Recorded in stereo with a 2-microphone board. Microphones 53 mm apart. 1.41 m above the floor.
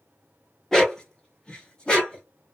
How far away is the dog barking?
About 0.8 m.